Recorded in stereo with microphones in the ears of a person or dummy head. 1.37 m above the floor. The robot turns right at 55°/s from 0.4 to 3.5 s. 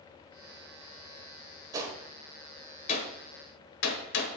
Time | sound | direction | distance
1.7 | a gunshot | 20° right (ahead or behind) | 1.1 m